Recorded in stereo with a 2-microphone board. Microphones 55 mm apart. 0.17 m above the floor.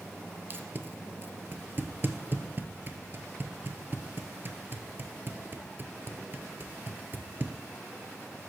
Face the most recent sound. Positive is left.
turn(degrees=-40)  # may be behind; listen again after turning